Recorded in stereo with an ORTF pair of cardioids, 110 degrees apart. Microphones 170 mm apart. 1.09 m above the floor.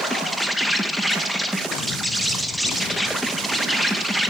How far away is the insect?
About 0.8 m.